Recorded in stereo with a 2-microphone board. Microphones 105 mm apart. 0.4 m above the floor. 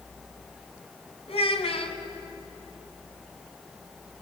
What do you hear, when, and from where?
1.3 s a child speaking: 70° left (ahead or behind), 2.5 m